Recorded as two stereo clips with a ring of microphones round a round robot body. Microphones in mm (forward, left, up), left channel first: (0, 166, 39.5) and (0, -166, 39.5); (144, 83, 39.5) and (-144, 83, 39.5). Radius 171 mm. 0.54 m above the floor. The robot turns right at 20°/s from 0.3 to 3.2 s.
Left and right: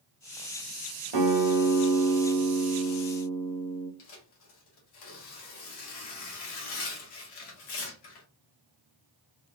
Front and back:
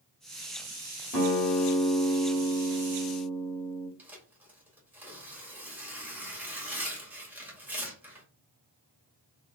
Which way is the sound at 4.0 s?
95° left.